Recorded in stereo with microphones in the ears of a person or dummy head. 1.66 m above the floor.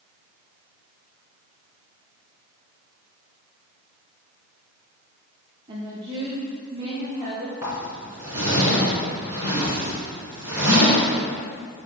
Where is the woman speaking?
20° right (ahead or behind), 0.7 m.